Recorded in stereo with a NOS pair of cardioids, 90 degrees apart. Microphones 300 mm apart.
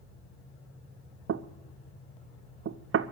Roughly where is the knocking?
Ahead right.